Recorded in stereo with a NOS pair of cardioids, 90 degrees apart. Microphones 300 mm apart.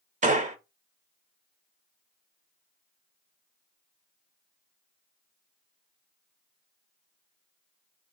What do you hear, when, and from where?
0.2 s a gunshot: 25° right, 0.7 m